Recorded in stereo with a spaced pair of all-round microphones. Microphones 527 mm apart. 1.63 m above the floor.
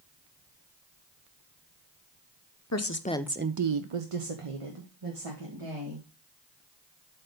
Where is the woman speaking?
30° left (ahead or behind), 0.9 m; by 6.1 s 65° right (ahead or behind), 3 m.